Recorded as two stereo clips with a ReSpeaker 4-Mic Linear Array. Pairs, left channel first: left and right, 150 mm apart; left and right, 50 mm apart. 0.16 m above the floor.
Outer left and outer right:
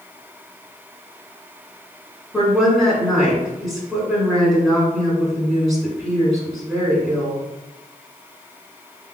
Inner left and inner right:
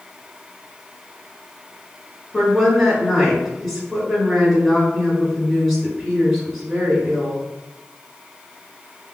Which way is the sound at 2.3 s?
Centre (ahead or behind).